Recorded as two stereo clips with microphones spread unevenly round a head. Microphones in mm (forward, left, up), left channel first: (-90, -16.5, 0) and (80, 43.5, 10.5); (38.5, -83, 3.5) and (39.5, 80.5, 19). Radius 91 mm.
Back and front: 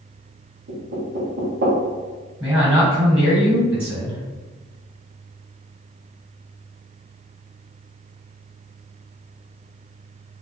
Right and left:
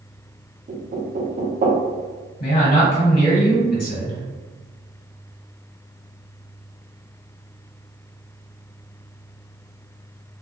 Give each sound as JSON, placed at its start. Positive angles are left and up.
{"t": 0.7, "sound": "knocking", "azimuth_deg": 50, "distance_m": 1.0}
{"t": 2.4, "sound": "a man speaking", "azimuth_deg": -60, "distance_m": 1.4}